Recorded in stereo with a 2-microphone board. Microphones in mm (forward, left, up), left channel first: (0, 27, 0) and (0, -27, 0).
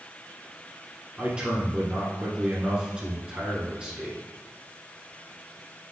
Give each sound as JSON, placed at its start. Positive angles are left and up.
{"t": 1.2, "sound": "a man speaking", "side_deg": -20, "distance_m": 1.2}